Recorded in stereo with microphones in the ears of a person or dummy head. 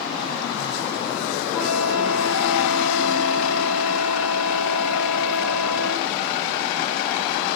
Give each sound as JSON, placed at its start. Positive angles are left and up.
{"t": 1.5, "sound": "a flute", "side_deg": 5, "distance_m": 9.5}